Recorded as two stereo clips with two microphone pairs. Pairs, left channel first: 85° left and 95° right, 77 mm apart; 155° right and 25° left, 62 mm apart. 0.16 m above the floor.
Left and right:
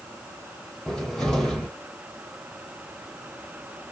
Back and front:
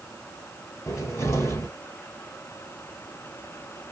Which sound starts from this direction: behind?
A cupboard door, at 0.9 s.